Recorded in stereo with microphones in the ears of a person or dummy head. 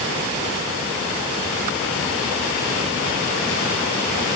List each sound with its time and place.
Only background noise.